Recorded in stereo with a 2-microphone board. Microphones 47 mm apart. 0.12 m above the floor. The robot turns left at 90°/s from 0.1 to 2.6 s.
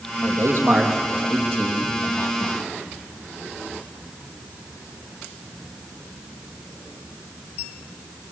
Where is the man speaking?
70° right (ahead or behind), 4.5 m; by 2.6 s 55° left (ahead or behind), 4.5 m.